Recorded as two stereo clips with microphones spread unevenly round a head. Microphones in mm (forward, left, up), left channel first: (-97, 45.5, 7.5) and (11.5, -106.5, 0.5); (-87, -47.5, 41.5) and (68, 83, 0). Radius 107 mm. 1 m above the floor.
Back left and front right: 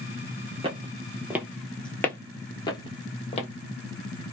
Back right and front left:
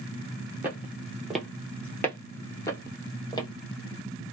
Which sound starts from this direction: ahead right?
Footsteps, at 0.6 s.